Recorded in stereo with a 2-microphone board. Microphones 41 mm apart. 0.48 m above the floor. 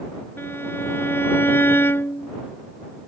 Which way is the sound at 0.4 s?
75° left (ahead or behind).